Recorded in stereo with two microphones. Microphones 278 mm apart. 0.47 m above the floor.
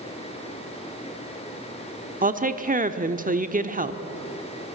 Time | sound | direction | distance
2.2 | a woman speaking | 30° right (ahead or behind) | 1.0 m